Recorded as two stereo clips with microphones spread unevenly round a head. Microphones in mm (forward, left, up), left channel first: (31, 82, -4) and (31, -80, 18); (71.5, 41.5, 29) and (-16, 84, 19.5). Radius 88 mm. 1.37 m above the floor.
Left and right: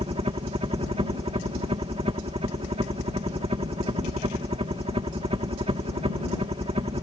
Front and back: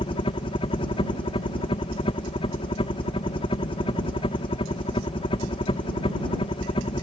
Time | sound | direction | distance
0.0 | a helicopter | 40° right | ?